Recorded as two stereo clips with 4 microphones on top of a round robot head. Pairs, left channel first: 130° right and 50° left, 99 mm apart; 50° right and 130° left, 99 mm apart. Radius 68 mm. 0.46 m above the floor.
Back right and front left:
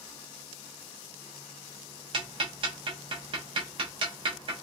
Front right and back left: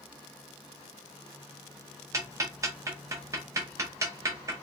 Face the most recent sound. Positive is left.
turn(degrees=75)